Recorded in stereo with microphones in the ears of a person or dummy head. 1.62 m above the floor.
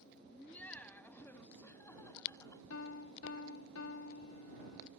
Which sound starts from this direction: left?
A piano, at 2.7 s.